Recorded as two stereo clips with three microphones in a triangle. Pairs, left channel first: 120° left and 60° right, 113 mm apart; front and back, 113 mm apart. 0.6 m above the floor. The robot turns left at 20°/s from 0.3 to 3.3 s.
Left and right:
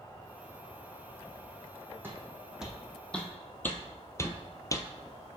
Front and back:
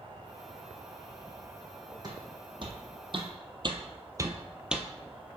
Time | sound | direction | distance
0.0 | an insect | 165° left | 1.1 m
2.0 | footsteps | 130° right | 1.5 m